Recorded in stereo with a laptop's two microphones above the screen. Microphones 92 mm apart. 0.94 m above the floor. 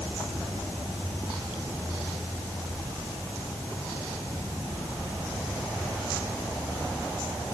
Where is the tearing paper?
I don't hear tearing paper.